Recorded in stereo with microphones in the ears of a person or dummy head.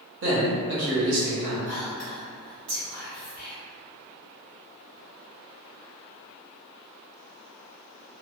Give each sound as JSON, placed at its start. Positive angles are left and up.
{"t": 0.2, "sound": "a man speaking", "side_deg": -70, "distance_m": 1.0}
{"t": 1.7, "sound": "whispering", "side_deg": -45, "distance_m": 1.7}